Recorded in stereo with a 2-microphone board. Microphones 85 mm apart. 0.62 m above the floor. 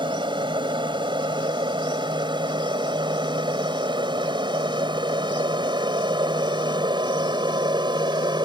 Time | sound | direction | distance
0.0 | an aircraft | 70° right (ahead or behind) | ?